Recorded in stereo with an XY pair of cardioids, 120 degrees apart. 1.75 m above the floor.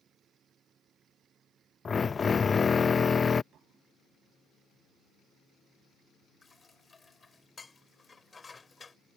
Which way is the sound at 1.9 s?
30° left.